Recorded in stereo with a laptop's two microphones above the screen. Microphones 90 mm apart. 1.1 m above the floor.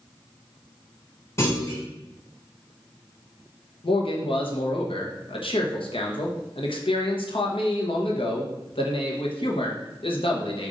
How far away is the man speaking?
About 0.9 m.